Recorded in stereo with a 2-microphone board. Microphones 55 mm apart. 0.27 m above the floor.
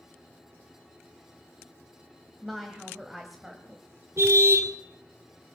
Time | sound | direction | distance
2.4 | a woman speaking | centre (ahead or behind) | 1.5 m
4.2 | a car horn | 55° right (ahead or behind) | 2 m